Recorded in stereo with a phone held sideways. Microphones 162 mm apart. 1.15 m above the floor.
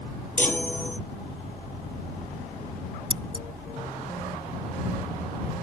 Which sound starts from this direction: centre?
A chime, at 0.4 s.